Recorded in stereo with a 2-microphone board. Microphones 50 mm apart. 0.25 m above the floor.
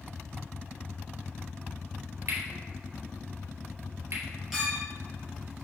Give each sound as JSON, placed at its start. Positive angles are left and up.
{"t": 2.3, "sound": "cutlery clinking", "side_deg": -75, "distance_m": 2.5}
{"t": 4.5, "sound": "a clink", "side_deg": -5, "distance_m": 3.0}